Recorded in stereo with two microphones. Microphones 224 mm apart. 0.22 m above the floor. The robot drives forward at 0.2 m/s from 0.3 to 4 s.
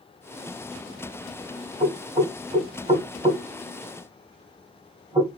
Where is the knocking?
25° right (ahead or behind), 1.4 m; by 5.4 s 20° right (ahead or behind), 1.5 m.